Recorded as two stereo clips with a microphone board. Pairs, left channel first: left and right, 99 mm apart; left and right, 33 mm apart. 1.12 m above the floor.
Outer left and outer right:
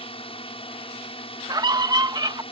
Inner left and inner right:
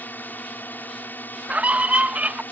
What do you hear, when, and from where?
0.0 s a drone: 60° left (ahead or behind)
1.5 s a scream: 40° right (ahead or behind)